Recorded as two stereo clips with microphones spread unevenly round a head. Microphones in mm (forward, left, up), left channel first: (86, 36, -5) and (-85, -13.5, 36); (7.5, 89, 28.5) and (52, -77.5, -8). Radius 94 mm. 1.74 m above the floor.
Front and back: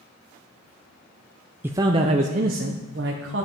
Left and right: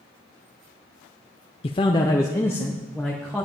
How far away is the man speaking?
About 0.5 m.